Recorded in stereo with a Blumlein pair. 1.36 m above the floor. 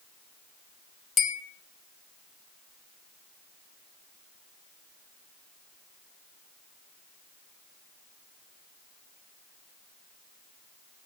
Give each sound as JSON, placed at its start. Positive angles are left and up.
{"t": 1.2, "sound": "a bell", "azimuth_deg": 25, "distance_m": 0.8}